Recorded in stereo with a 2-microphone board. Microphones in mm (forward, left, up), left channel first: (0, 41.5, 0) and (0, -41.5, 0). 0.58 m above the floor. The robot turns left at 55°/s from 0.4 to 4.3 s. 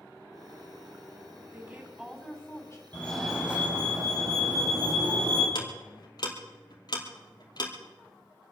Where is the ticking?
55° left (ahead or behind), 2.5 m.